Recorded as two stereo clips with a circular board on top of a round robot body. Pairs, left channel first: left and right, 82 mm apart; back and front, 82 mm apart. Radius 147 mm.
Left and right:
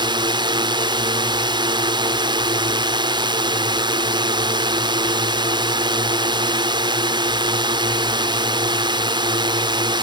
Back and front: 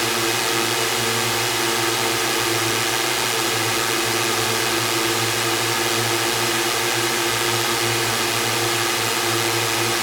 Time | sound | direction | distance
0.0 | a drone | 90° right | ?